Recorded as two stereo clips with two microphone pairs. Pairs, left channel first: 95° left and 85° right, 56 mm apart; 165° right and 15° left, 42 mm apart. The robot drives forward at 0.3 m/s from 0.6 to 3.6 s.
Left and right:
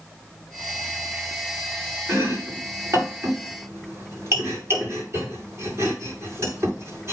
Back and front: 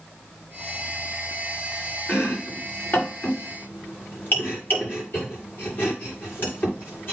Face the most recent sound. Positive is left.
turn(degrees=-125)